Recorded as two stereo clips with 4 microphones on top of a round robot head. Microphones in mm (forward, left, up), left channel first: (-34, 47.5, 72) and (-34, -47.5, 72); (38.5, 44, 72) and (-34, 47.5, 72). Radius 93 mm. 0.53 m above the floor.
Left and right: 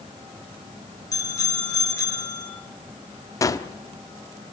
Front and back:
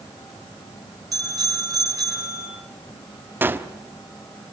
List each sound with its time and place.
1.1 s a bicycle bell: 140° left, 9.5 m
3.4 s a gunshot: 130° left, 1.3 m